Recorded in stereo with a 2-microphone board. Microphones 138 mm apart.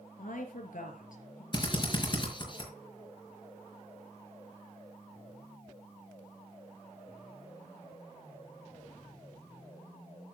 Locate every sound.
0.2 s a woman speaking: 75° left (ahead or behind), 4.5 m
1.5 s a drill: 35° left (ahead or behind), 5 m